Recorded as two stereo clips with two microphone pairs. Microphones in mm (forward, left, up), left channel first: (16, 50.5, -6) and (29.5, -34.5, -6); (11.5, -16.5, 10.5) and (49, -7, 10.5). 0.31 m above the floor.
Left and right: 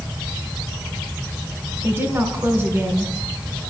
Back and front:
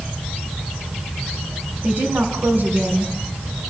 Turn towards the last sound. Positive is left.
turn(degrees=-20)